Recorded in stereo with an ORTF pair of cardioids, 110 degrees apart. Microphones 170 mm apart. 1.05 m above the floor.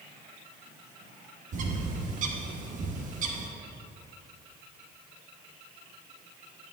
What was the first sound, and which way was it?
A bird, 50° right.